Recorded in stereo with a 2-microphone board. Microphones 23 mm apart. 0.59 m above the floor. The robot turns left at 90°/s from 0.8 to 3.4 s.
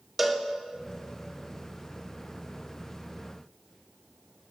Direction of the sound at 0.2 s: 5° right (ahead or behind).